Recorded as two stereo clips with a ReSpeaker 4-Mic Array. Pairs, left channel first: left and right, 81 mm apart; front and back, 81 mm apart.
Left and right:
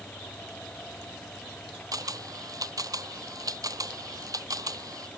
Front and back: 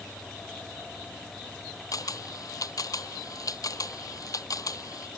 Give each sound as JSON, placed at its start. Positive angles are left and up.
{"t": 1.9, "sound": "a camera shutter", "azimuth_deg": -45}